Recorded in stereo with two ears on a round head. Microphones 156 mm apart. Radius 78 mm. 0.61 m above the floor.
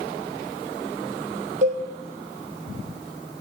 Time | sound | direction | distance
1.6 | a cowbell | 50° right (ahead or behind) | 4 m